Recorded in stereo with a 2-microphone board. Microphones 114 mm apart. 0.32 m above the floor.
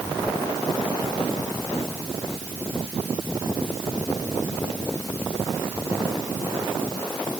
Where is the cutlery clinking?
No cutlery clinking in this recording.